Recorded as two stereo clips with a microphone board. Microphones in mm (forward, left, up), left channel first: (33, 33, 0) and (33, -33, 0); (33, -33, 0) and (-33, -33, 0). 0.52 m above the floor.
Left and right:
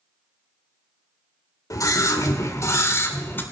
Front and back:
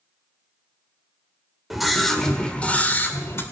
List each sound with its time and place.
1.7 s a scream: 95° left, 2.0 m; by 3.4 s 40° left, 2.0 m